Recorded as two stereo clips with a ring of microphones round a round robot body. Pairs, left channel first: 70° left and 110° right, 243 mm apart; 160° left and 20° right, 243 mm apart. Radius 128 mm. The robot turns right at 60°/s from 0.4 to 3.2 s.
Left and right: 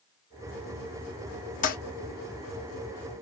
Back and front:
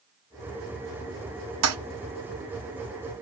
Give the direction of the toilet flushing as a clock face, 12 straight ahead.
12 o'clock.